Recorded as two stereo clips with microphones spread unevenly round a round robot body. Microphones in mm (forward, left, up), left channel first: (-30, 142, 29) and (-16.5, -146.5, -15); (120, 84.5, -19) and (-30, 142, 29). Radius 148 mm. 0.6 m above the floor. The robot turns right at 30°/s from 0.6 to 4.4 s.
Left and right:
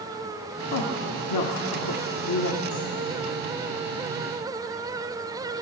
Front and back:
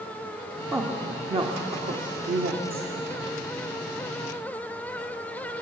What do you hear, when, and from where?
0.7 s a woman speaking: 75° left, 1.6 m; by 3.2 s 150° left, 1.6 m